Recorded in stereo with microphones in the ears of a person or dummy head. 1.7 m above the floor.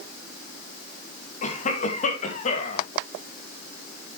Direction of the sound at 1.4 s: 45° left (ahead or behind).